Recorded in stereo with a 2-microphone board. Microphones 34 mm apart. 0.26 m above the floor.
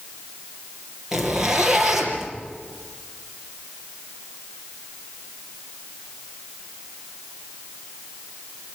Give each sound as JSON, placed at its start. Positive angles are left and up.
{"t": 1.1, "sound": "a zipper", "side_deg": -10, "distance_m": 5.0}